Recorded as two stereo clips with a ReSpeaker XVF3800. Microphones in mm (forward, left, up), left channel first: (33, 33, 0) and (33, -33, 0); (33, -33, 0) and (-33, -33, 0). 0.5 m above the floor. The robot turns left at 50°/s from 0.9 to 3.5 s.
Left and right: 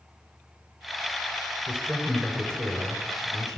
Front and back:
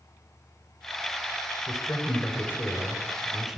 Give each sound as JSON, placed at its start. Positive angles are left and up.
{"t": 1.7, "sound": "a man speaking", "azimuth_deg": -5, "distance_m": 2.0}